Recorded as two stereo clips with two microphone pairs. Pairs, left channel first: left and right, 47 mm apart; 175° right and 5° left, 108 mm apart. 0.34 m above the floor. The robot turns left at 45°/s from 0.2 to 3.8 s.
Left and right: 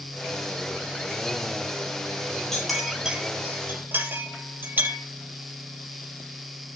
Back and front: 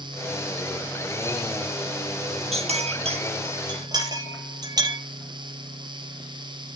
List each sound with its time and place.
2.5 s a clink: 10° left, 4 m; by 5.0 s 45° right, 4 m